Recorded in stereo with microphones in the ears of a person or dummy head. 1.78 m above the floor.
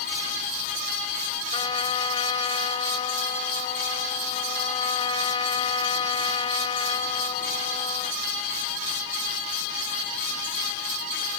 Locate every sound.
1.5 s a trumpet: 30° left (ahead or behind)